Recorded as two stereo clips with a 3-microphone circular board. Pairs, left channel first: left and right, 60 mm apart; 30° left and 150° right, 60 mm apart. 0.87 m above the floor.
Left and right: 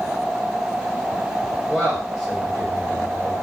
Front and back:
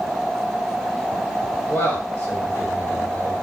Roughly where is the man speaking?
Ahead.